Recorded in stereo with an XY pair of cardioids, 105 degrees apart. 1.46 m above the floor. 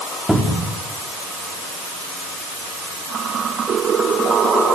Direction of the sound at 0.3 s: 5° right.